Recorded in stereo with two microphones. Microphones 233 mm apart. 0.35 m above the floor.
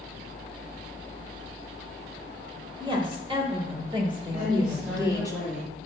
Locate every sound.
2.8 s a woman speaking: 20° right (ahead or behind), 1.5 m; by 5.3 s 15° right (ahead or behind), 1.6 m
4.3 s a woman speaking: 40° right (ahead or behind), 3 m